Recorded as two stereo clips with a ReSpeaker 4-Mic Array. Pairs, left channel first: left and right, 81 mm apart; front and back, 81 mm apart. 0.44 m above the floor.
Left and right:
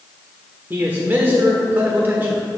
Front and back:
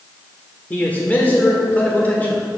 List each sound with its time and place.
0.7 s a man speaking: 50° right, 1.2 m